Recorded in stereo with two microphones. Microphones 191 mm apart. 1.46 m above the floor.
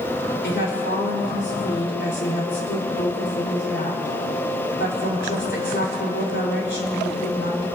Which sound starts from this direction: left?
A woman speaking, at 0.4 s.